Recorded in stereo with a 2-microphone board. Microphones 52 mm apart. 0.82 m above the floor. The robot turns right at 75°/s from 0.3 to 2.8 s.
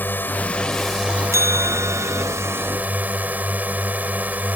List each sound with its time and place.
0.0 s a drone: 135° left; by 4.6 s 35° right
1.3 s a bell: 110° right; by 2.2 s 40° right